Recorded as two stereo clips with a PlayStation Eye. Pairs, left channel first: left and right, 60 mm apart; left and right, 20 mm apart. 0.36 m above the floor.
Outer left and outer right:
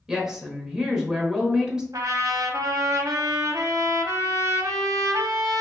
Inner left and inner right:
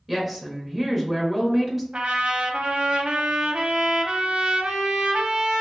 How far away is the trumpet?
About 0.6 m.